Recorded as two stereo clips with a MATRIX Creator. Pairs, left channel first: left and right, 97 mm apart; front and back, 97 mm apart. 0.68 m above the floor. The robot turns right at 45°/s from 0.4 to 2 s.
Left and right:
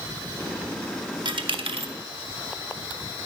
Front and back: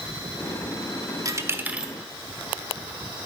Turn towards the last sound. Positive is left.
turn(degrees=-95)